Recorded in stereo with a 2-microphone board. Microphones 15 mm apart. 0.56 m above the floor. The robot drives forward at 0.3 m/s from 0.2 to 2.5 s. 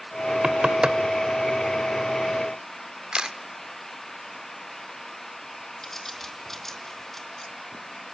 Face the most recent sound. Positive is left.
turn(degrees=15)  # may be behind; listen again after turning